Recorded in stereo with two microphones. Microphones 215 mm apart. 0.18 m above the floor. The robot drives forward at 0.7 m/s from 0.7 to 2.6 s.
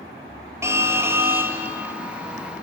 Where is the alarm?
10° right (ahead or behind), 2 m.